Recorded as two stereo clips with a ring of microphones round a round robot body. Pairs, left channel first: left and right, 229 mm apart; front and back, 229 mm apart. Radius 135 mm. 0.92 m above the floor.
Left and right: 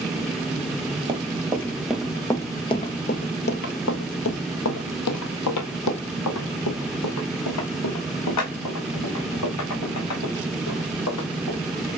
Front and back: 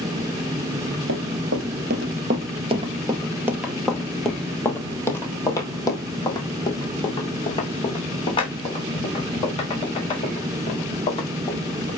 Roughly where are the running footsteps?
Behind right.